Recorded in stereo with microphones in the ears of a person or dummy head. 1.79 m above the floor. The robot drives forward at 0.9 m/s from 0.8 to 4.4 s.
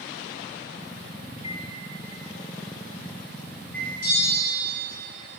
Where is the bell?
50° left (ahead or behind), 3 m; by 4.5 s 45° left (ahead or behind), 3.5 m.